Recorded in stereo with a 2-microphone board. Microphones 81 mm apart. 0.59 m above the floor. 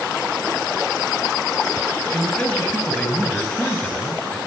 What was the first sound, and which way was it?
A man speaking, 15° left (ahead or behind).